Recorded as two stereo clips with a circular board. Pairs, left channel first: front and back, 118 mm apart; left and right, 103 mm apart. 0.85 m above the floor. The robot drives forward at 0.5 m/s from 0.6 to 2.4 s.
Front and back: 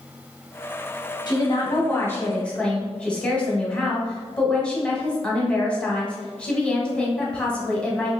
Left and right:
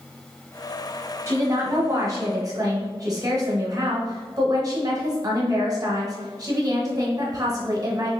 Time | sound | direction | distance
1.3 | a woman speaking | 35° right | 1.1 m